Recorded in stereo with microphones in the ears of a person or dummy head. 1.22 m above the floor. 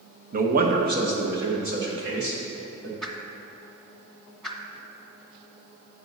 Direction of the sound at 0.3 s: 45° right (ahead or behind).